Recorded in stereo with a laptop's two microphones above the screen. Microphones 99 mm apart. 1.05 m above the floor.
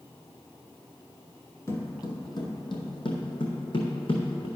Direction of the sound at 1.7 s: 30° left (ahead or behind).